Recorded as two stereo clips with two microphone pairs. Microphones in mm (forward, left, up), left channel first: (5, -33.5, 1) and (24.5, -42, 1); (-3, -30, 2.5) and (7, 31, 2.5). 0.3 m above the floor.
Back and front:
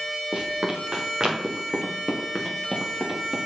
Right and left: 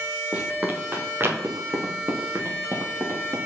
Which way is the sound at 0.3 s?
10° left.